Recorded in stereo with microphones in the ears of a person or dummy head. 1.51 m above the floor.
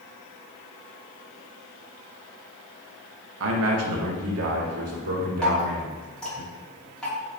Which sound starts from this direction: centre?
Dripping, at 5.4 s.